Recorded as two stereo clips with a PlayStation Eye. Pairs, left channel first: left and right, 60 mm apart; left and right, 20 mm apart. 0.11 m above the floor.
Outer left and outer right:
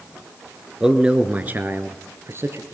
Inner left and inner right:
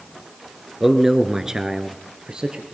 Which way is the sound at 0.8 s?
10° right (ahead or behind).